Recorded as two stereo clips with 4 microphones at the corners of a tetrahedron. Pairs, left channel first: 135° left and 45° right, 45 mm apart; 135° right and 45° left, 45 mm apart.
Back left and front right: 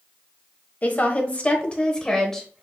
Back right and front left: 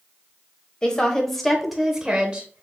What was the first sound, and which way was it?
A woman speaking, 160° left.